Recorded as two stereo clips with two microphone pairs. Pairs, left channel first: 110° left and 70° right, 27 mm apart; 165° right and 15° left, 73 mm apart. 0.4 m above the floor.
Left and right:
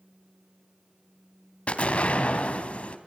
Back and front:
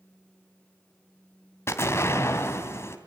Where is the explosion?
145° left, 3 m.